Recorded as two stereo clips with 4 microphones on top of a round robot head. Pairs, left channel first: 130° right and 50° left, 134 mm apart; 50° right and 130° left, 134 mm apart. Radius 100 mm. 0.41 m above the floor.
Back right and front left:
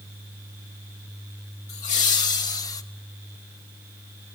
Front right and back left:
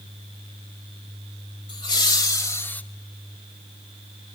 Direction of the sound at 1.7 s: 85° right.